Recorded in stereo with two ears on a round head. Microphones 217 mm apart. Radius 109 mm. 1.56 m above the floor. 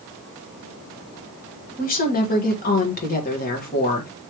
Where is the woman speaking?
35° left (ahead or behind), 1.3 m.